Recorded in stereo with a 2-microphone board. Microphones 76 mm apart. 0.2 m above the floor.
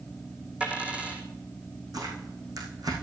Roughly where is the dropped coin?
Centre.